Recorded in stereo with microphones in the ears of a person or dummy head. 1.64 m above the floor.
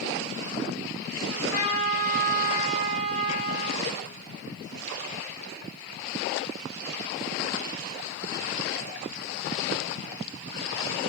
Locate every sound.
1.3 s a trumpet: 70° left (ahead or behind), 0.9 m